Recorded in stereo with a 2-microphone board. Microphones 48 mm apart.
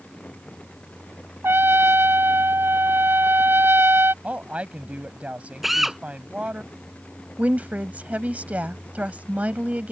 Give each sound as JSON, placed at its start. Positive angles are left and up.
{"t": 1.4, "sound": "a trumpet", "side_deg": -55}
{"t": 4.2, "sound": "a woman speaking", "side_deg": -30}
{"t": 5.6, "sound": "a drill", "side_deg": -5}
{"t": 7.4, "sound": "a woman speaking", "side_deg": -30}